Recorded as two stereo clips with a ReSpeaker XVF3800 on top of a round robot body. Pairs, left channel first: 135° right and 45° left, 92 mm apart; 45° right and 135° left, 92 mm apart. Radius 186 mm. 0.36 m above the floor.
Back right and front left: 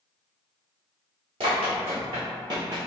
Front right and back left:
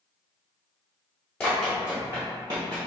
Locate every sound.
1.4 s running footsteps: 30° left, 0.8 m; by 2.9 s 100° left, 1.1 m